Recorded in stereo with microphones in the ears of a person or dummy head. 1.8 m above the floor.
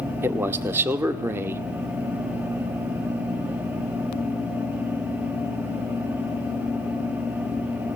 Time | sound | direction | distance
0.2 | a man speaking | 10° right (ahead or behind) | 0.5 m